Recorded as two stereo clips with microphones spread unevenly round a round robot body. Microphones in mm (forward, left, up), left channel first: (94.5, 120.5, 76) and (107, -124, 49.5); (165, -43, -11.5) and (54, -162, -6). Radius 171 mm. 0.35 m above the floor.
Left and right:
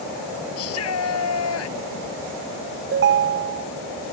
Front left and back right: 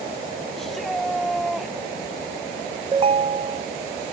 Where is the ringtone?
80° right.